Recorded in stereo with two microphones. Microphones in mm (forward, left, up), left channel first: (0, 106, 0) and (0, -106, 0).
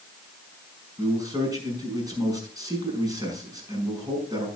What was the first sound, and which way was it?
A man speaking, 15° right (ahead or behind).